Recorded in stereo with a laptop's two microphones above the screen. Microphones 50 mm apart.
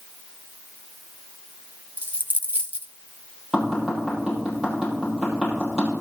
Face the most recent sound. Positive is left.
turn(degrees=-10)  # may be behind; listen again after turning